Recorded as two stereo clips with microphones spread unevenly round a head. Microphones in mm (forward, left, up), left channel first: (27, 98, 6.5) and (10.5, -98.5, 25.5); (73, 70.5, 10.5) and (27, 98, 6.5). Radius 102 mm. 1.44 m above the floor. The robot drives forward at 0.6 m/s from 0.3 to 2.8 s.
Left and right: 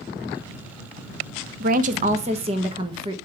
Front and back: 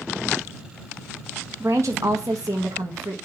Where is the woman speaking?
140° right, 0.7 m; by 3.1 s 160° right, 1.4 m.